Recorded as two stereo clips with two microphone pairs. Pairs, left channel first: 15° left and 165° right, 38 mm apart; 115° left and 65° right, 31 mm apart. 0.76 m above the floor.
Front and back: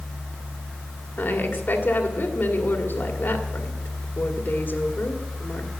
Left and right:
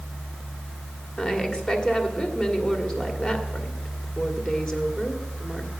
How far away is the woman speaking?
About 2.0 m.